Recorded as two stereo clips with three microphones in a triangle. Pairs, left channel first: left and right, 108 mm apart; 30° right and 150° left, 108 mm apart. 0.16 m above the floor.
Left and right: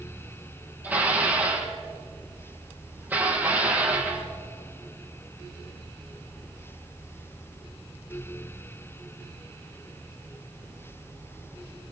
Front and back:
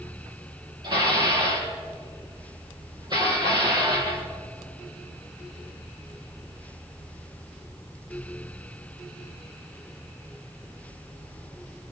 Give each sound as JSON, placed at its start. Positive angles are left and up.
{"t": 0.8, "sound": "dishes clattering", "azimuth_deg": -160, "distance_m": 3.5}